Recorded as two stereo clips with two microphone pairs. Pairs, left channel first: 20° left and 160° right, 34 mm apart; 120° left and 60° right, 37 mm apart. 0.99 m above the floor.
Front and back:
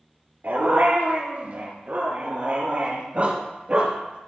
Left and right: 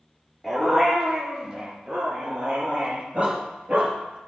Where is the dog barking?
140° right, 5 m; by 4.2 s 110° right, 5.5 m.